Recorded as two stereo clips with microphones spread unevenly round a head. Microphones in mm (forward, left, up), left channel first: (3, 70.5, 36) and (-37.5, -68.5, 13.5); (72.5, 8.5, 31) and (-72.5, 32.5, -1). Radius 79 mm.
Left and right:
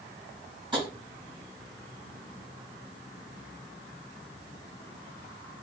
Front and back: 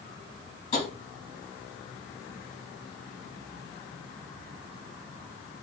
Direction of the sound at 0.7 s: 45° right.